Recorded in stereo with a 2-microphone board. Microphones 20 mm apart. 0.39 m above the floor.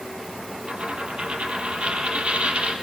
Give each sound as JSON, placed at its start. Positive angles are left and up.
{"t": 0.7, "sound": "a dropped coin", "side_deg": -70, "distance_m": 4.0}